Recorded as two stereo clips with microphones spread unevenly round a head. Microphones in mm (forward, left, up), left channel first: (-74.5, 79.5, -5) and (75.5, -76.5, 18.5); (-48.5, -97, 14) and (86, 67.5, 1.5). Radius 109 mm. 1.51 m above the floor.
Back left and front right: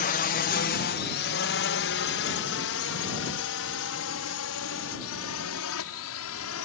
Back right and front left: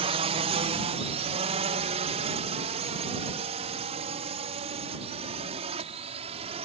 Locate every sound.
0.0 s a drone: 105° left; by 6.7 s 115° left